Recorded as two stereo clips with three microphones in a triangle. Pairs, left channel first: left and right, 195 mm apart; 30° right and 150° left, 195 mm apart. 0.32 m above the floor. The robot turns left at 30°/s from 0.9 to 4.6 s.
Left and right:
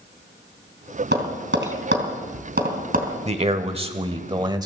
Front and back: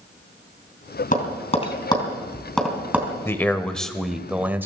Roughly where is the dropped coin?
No dropped coin in this recording.